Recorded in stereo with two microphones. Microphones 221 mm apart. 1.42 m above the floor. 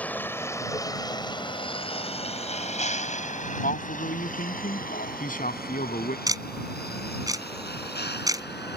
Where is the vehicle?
5° left (ahead or behind); by 8.8 s 55° left (ahead or behind).